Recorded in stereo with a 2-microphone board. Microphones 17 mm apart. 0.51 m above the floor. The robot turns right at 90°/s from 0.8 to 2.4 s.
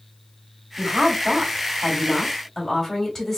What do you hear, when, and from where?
0.8 s a woman speaking: 130° right, 2.5 m; by 3.4 s 15° left, 2.5 m